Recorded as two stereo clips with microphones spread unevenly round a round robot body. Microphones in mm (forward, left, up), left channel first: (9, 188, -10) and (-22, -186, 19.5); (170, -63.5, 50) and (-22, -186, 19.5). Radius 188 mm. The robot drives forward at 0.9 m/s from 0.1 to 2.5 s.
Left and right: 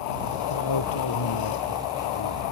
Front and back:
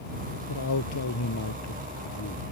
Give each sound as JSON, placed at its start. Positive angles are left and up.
{"t": 0.5, "sound": "a man speaking", "azimuth_deg": 45}